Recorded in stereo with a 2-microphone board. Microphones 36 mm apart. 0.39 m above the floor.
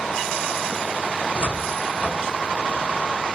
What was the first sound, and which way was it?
A cupboard door, 40° right (ahead or behind).